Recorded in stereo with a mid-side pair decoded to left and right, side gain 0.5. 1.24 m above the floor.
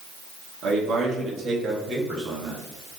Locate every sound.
0.6 s a man speaking: 60° right, 2 m; by 2.6 s 30° right, 2.5 m